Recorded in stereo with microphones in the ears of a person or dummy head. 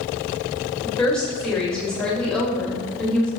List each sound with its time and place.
0.8 s a woman speaking: 5° left (ahead or behind), 1.5 m